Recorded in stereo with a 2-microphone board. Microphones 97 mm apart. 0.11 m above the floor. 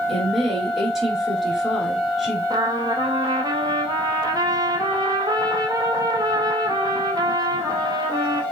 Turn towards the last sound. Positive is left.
turn(degrees=-45)  # may be behind; listen again after turning